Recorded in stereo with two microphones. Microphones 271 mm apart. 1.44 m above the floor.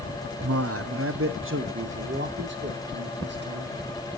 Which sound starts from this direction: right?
A man speaking, at 0.4 s.